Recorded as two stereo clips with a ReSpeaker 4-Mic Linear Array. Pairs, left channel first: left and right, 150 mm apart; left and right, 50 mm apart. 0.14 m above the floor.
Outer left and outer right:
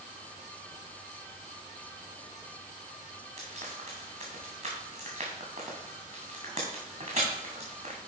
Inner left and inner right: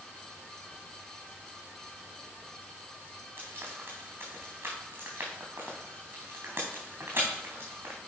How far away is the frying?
About 3 m.